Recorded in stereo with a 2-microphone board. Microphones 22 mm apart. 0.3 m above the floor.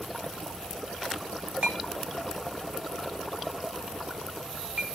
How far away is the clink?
About 1.4 m.